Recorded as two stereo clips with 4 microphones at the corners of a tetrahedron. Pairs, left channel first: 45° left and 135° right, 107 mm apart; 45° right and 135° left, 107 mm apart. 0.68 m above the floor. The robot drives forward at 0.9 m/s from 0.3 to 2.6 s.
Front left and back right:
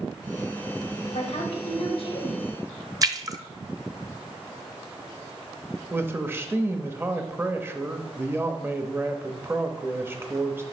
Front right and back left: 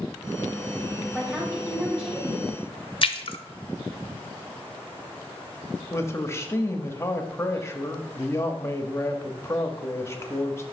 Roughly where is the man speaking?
Right.